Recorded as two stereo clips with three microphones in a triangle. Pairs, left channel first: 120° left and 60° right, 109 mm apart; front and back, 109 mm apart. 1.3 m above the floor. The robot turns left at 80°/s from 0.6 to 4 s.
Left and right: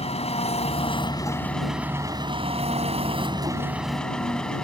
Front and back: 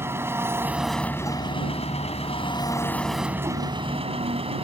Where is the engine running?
115° left; by 4.7 s 160° right.